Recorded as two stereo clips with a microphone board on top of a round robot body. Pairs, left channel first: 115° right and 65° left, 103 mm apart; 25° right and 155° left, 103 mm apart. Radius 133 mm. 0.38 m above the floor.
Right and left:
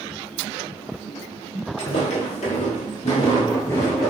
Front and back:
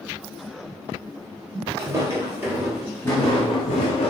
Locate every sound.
1.8 s footsteps: 145° right, 1.0 m; by 4.1 s 25° right, 0.7 m